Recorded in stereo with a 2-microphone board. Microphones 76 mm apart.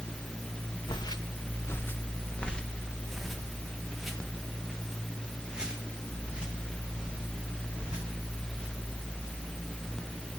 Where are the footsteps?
70° left (ahead or behind), 1.2 m; by 9.4 s 15° right (ahead or behind), 9 m.